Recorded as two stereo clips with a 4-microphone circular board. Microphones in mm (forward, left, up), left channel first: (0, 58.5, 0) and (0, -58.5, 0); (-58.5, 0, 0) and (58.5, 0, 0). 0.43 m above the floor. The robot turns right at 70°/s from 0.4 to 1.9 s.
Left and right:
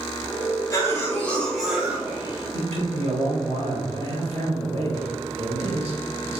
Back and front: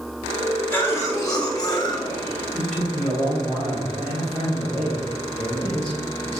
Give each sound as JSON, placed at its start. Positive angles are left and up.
{"t": 0.7, "sound": "a cough", "azimuth_deg": 115, "distance_m": 1.3}
{"t": 2.5, "sound": "a man speaking", "azimuth_deg": -105, "distance_m": 2.0}